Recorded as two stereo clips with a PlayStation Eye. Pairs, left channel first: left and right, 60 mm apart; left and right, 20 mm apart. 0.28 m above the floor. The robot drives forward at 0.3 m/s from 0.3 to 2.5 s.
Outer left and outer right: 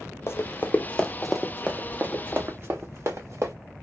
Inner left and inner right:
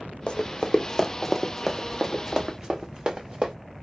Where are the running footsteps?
55° left (ahead or behind), 0.7 m; by 3.5 s 60° right (ahead or behind), 1.3 m.